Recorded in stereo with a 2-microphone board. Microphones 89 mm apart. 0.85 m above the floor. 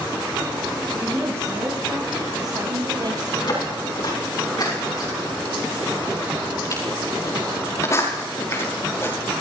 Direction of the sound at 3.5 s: 55° left (ahead or behind).